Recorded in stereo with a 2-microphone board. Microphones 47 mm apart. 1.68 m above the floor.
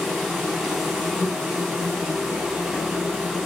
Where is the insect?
Centre (ahead or behind), 4 m.